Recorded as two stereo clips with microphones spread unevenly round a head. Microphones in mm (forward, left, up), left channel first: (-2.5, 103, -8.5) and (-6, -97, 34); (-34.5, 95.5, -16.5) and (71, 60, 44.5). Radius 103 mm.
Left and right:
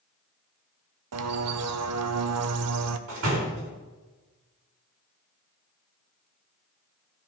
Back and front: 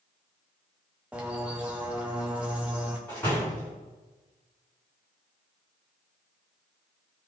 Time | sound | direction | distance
1.1 | a bird | 105° right | 0.7 m
3.1 | a door slam | 115° right | 3.5 m